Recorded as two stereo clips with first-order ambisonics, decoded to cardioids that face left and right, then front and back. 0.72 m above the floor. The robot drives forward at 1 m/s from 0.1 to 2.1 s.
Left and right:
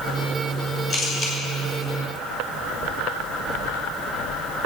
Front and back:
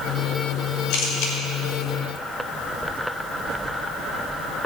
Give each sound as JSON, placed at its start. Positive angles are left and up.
{"t": 0.9, "sound": "a camera shutter", "azimuth_deg": 30, "distance_m": 4.0}